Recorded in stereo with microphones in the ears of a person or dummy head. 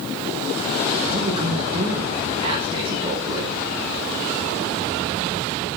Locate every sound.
1.1 s a man speaking: 25° right (ahead or behind), 6 m